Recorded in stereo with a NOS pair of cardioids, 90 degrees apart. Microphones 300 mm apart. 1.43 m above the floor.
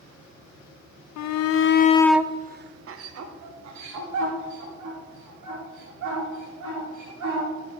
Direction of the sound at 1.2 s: 65° left.